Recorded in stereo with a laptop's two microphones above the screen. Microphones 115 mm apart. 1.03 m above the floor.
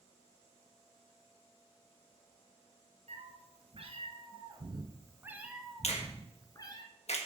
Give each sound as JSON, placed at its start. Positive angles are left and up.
{"t": 3.1, "sound": "a cat meowing", "side_deg": -65, "distance_m": 2.0}
{"t": 5.8, "sound": "a finger snap", "side_deg": 70, "distance_m": 1.4}